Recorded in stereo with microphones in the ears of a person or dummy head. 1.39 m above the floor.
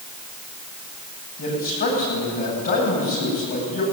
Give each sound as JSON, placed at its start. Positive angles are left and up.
{"t": 1.4, "sound": "a man speaking", "side_deg": 45, "distance_m": 9.5}